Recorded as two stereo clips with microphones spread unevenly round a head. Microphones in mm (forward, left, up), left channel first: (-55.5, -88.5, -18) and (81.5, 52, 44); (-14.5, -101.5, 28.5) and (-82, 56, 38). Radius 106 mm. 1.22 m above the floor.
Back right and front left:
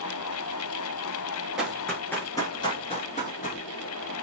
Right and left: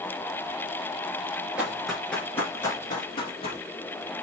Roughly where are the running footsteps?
Ahead left.